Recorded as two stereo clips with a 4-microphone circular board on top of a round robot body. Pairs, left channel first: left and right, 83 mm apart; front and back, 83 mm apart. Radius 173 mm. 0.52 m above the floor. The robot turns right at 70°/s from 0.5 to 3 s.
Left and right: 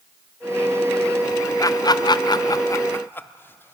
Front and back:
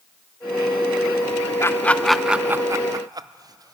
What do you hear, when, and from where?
1.6 s laughter: 50° left, 1.0 m; by 3.7 s 150° left, 1.0 m